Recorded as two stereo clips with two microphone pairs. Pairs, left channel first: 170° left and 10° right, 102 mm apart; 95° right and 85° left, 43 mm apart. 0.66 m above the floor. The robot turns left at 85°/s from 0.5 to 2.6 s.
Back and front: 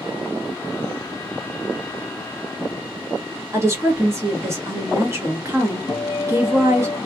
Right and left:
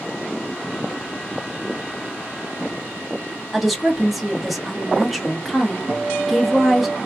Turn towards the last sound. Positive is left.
turn(degrees=110)